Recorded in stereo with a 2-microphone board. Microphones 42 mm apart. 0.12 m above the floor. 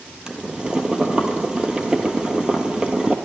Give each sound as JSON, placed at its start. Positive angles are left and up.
{"t": 0.3, "sound": "boiling", "side_deg": -20, "distance_m": 1.1}